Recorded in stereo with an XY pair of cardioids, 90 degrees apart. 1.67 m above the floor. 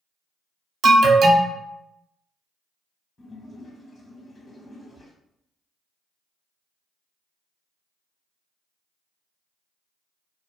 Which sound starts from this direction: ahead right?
An alarm, at 0.8 s.